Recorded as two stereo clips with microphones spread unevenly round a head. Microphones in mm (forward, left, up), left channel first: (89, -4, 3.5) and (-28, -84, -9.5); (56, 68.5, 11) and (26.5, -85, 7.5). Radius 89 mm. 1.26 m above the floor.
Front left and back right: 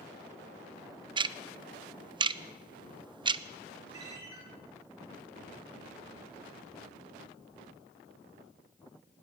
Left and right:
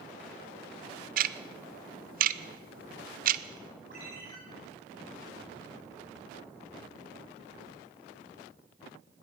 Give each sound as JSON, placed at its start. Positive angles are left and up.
{"t": 1.2, "sound": "ticking", "azimuth_deg": -100, "distance_m": 0.6}
{"t": 3.9, "sound": "a ringtone", "azimuth_deg": -150, "distance_m": 8.5}